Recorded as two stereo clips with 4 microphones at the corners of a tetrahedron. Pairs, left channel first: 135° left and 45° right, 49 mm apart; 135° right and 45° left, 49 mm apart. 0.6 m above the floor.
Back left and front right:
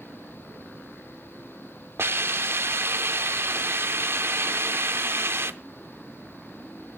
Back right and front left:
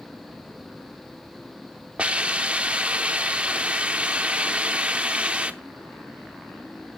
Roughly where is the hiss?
Ahead.